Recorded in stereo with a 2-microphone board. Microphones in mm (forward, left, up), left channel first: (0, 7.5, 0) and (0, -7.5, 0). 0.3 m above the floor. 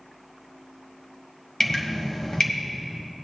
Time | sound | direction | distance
1.6 | dripping | 35° left (ahead or behind) | 1.6 m